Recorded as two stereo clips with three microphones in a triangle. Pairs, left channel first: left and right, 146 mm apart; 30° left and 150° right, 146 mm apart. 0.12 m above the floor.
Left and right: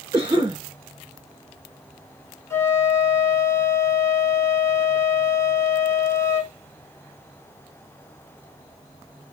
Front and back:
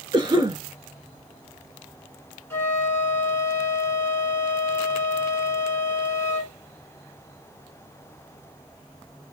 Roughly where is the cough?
Behind right.